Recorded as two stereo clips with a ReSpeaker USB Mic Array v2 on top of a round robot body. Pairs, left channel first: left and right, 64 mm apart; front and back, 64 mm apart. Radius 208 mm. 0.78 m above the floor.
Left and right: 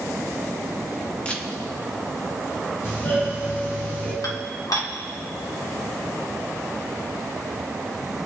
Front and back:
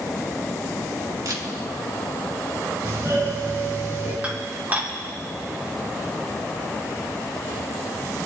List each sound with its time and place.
1.2 s a camera shutter: 160° left, 2.5 m
2.8 s a doorbell: 140° left, 6.5 m
4.2 s dishes clattering: 115° left, 1.9 m